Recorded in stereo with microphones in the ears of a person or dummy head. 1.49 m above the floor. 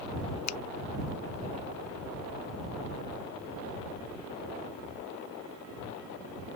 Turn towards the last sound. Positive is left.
turn(degrees=85)